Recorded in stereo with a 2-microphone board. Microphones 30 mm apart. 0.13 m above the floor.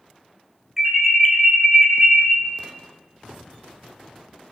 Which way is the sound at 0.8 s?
10° right (ahead or behind).